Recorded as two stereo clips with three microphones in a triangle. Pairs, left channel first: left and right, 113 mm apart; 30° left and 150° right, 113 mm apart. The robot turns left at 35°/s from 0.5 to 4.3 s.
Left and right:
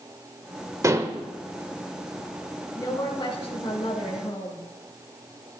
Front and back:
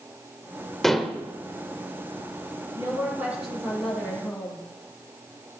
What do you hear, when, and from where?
0.8 s dishes clattering: 55° right, 0.8 m; by 1.2 s 70° right, 0.8 m
2.8 s a woman speaking: 155° left, 3 m; by 4.7 s 100° left, 3 m